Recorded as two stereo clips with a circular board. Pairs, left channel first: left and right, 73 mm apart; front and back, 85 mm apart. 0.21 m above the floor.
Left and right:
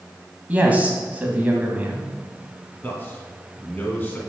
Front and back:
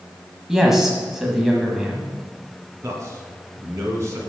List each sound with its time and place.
0.5 s a man speaking: 100° right, 1.3 m
2.8 s a man speaking: 145° left, 1.8 m